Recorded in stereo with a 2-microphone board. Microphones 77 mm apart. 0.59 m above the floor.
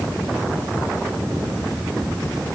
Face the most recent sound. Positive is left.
No sound to turn to.